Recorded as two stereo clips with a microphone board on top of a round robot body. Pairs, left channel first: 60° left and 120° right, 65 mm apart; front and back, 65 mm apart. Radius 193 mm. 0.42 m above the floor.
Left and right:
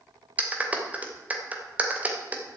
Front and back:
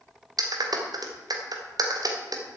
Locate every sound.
0.4 s a clap: 175° left, 2.5 m